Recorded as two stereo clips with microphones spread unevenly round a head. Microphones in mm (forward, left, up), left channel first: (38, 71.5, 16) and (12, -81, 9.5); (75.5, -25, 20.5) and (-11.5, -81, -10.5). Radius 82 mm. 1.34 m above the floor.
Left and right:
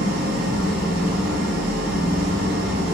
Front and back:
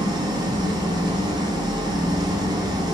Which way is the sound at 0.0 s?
95° right.